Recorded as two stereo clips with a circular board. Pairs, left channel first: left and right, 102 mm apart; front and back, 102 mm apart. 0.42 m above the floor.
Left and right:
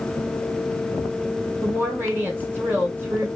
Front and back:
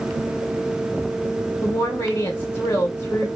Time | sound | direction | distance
1.6 | a woman speaking | 40° right | 1.3 m